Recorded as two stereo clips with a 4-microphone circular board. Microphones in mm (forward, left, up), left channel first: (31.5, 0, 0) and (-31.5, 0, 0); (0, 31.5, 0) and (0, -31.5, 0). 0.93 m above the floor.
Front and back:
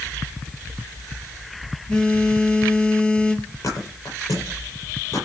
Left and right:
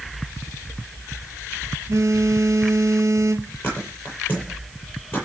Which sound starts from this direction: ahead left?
A thud, at 3.6 s.